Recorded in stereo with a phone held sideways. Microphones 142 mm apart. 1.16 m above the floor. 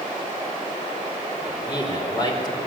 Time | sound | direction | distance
1.4 | a man speaking | 30° left (ahead or behind) | 5 m